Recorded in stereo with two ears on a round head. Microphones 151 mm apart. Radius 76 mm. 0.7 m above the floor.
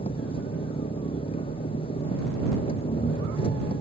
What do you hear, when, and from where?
0.0 s an engine running: 35° left (ahead or behind)